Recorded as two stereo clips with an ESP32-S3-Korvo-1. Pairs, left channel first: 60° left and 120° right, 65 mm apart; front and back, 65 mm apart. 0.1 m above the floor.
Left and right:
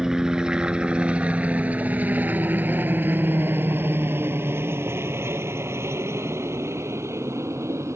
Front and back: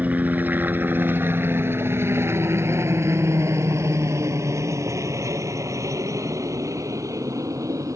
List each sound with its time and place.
0.0 s a helicopter: 170° left; by 8.0 s 155° right